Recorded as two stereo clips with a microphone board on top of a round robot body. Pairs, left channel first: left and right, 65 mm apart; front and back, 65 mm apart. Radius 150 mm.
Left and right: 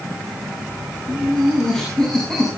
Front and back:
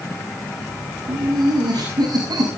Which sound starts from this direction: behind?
Laughter, at 1.1 s.